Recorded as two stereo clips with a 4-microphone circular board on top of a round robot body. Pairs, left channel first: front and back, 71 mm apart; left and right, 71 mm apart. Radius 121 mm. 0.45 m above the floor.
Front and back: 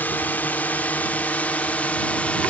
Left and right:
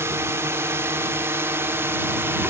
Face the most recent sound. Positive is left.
turn(degrees=-60)